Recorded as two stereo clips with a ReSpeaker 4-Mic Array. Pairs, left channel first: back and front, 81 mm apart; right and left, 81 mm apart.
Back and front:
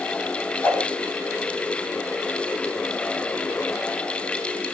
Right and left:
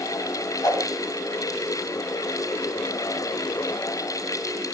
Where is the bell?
I don't hear a bell.